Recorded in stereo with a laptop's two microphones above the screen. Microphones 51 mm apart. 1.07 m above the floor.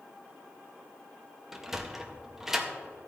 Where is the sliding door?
10° right (ahead or behind), 0.5 m.